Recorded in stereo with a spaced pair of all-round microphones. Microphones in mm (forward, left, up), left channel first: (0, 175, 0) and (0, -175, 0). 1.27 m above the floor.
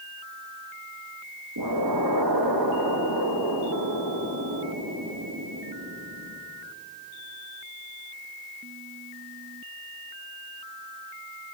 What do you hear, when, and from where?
1.6 s an explosion: 85° right, 1.9 m